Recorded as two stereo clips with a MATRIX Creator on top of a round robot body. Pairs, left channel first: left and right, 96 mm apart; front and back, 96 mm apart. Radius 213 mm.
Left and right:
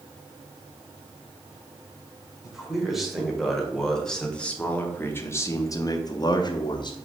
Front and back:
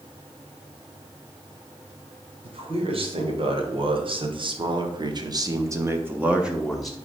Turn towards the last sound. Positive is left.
turn(degrees=85)